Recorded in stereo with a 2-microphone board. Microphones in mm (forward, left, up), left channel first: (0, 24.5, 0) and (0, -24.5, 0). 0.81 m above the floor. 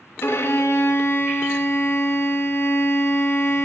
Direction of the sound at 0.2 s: 55° left (ahead or behind).